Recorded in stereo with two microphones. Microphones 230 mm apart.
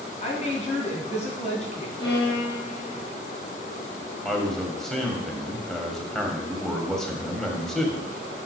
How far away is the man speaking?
About 1.8 m.